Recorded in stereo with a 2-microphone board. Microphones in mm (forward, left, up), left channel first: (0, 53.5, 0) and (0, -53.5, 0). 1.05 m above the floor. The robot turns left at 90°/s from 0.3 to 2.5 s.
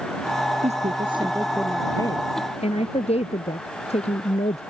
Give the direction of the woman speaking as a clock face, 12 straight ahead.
3 o'clock.